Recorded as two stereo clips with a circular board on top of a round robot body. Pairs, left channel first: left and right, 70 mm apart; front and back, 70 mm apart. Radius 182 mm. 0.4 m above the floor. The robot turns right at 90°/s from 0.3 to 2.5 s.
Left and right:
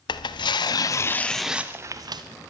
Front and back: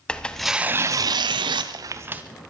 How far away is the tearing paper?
About 0.5 m.